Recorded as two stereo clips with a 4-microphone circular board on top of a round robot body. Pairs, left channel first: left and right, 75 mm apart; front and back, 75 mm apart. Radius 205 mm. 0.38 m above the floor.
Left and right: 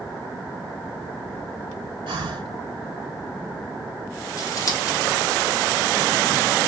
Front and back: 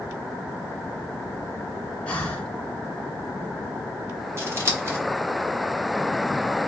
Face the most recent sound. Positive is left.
turn(degrees=130)